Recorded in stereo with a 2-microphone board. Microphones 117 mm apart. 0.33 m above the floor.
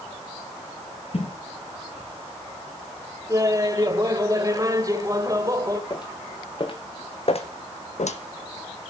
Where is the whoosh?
55° left (ahead or behind), 3.5 m.